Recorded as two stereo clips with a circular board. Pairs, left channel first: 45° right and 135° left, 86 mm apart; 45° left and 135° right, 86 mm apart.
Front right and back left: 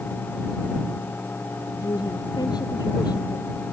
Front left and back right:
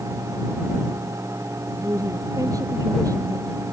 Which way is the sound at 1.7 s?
85° right.